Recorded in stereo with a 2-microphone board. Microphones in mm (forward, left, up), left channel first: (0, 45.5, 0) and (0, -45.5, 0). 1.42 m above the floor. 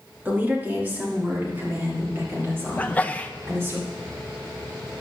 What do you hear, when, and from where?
0.2 s a woman speaking: 20° right (ahead or behind), 3 m; by 3.8 s 30° right (ahead or behind), 5.5 m
2.8 s a sneeze: 20° left (ahead or behind), 0.9 m